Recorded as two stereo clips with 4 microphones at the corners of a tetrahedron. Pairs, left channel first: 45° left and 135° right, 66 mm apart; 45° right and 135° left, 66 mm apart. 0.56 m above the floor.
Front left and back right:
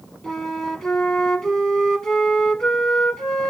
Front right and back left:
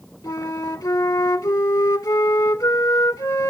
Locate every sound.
0.2 s a flute: 35° right, 0.9 m